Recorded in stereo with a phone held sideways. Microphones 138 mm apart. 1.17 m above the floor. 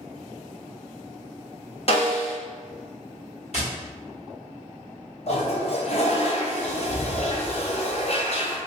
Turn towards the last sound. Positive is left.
turn(degrees=50)  # may be behind; listen again after turning